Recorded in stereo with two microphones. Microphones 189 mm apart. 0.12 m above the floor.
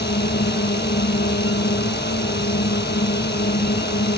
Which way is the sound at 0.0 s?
60° left (ahead or behind).